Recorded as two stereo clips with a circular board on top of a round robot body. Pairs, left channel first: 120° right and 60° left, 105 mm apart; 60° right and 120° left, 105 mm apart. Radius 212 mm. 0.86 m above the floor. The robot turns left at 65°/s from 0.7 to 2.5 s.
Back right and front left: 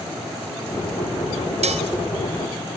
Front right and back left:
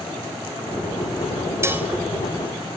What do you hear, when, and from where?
1.6 s dishes clattering: 55° left, 3 m; by 1.9 s 40° left, 3 m